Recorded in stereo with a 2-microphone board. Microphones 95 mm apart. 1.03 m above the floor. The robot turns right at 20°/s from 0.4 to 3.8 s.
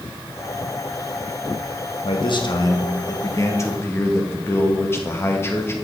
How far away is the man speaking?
About 1.1 m.